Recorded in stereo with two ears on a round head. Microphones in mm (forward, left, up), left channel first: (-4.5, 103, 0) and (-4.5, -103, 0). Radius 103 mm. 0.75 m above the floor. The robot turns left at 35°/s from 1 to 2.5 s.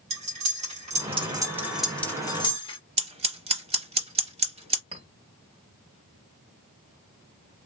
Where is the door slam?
I don't hear a door slam.